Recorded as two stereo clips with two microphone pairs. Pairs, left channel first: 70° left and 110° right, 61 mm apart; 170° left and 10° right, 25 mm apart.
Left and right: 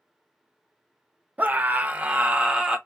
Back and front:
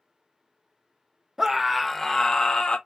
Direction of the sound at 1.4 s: 75° right.